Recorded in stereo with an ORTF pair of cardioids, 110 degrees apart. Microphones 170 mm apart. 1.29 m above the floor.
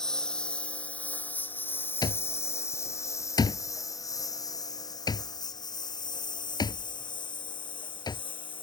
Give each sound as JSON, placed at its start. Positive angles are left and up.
{"t": 0.0, "sound": "a lawn mower", "azimuth_deg": 5}
{"t": 2.0, "sound": "an alarm clock", "azimuth_deg": 25}